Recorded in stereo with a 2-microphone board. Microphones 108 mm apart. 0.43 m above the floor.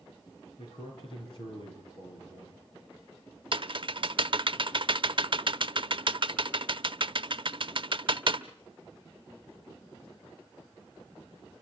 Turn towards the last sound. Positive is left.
turn(degrees=-55)  # may be behind; listen again after turning